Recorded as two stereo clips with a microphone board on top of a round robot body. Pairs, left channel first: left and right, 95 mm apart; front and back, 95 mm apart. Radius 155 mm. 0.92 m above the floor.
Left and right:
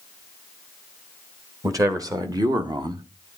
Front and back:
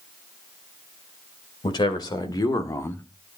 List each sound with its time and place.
1.6 s a man speaking: 40° right, 2.5 m; by 3.1 s 65° right, 1.3 m